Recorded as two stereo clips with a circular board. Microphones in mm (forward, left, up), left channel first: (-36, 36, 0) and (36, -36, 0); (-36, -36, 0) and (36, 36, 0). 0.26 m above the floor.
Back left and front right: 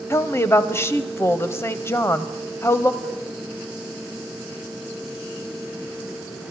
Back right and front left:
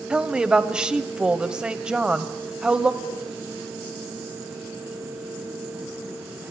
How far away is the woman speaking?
About 1.0 m.